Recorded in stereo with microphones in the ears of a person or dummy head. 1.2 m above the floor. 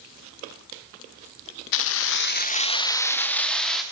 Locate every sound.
1.7 s keys jangling: 65° left (ahead or behind), 0.8 m; by 3.8 s centre (ahead or behind), 1.8 m